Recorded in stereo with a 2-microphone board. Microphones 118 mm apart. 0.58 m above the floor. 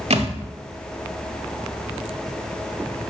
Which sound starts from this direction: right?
A thud, at 0.1 s.